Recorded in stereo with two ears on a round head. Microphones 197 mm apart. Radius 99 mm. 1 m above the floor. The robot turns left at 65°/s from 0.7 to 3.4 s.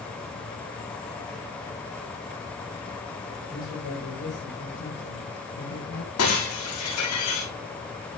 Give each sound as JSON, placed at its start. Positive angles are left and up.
{"t": 3.5, "sound": "a man speaking", "side_deg": 75, "distance_m": 5.0}
{"t": 6.2, "sound": "breaking glass", "side_deg": 75, "distance_m": 8.0}